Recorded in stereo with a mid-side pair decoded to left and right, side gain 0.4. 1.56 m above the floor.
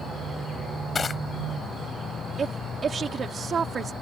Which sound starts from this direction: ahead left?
Crushing, at 0.9 s.